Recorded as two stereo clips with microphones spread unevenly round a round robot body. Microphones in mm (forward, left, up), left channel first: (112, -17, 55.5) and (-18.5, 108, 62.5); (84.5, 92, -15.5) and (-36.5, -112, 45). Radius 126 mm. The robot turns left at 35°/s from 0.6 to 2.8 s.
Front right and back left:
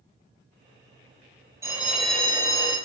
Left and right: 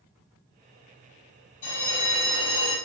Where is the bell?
60° left, 2.0 m; by 2.8 s 20° left, 2.0 m.